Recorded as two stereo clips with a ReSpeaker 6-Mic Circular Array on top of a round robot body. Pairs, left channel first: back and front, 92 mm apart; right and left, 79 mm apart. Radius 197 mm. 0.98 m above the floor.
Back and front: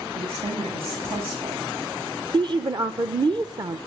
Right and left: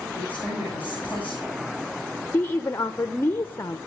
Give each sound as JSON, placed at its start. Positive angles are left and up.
{"t": 0.1, "sound": "a woman speaking", "azimuth_deg": 15, "distance_m": 9.0}
{"t": 2.3, "sound": "a woman speaking", "azimuth_deg": -30, "distance_m": 1.3}